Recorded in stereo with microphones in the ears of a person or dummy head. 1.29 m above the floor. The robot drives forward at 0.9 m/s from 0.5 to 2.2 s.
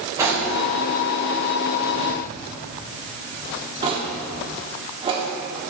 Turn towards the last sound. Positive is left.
turn(degrees=-30)  # may be behind; listen again after turning